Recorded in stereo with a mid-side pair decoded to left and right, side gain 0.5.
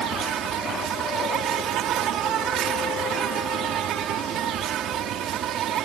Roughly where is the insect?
Ahead right.